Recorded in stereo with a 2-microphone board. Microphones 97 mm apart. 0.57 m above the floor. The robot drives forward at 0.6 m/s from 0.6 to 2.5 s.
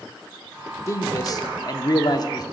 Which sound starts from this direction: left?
A man speaking, at 0.9 s.